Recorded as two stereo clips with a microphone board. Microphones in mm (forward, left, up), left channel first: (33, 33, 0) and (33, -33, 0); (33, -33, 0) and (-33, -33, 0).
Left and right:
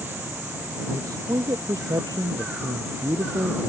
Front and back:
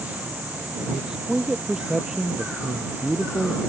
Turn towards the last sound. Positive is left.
turn(degrees=-100)